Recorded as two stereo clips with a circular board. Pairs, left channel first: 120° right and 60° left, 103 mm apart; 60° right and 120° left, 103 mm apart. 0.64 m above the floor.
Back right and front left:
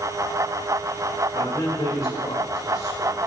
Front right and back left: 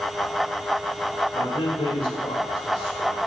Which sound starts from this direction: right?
A man speaking, at 1.3 s.